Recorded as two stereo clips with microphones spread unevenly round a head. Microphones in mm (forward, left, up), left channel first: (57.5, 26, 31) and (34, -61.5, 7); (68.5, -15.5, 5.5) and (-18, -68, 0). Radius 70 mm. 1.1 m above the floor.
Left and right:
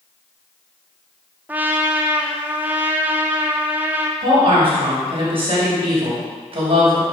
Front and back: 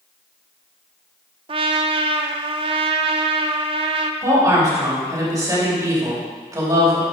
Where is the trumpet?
165° right, 0.6 m.